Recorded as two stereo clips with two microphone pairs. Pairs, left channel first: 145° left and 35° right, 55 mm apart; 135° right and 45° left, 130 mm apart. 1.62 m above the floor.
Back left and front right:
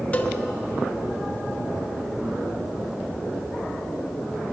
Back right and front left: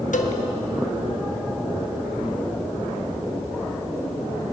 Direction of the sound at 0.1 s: 150° right.